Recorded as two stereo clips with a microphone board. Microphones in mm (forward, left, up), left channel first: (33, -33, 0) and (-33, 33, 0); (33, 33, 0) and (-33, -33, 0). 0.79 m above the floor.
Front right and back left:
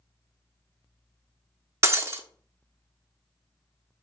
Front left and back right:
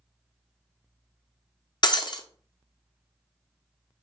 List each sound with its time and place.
1.8 s breaking glass: 80° left, 0.5 m